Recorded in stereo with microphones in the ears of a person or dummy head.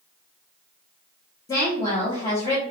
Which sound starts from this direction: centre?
A woman speaking, at 1.5 s.